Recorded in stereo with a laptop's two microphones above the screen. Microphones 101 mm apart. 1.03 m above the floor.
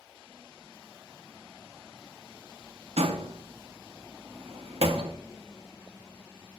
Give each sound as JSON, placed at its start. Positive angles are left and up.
{"t": 3.0, "sound": "a door slam", "side_deg": -80, "distance_m": 0.7}